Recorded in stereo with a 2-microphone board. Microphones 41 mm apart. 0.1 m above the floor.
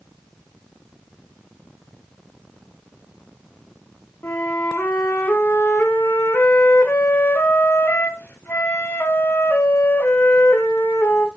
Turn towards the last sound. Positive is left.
turn(degrees=60)  # may be behind; listen again after turning